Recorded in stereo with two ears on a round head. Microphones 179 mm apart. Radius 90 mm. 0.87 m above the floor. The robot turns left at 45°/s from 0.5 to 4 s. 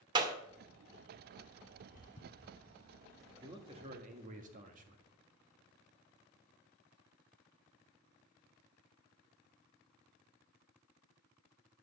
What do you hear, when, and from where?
0.1 s a clap: 25° right (ahead or behind), 1.7 m
1.8 s footsteps: 45° left (ahead or behind), 1.9 m; by 4.3 s 30° right (ahead or behind), 3.5 m
3.4 s a man speaking: 15° right (ahead or behind), 1.6 m; by 5.0 s 40° right (ahead or behind), 1.6 m